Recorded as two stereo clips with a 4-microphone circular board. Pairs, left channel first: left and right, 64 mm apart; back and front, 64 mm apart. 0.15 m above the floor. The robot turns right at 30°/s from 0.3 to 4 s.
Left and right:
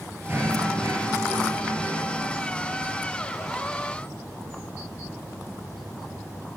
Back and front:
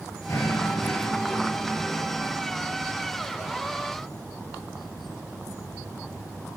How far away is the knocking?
About 1.7 m.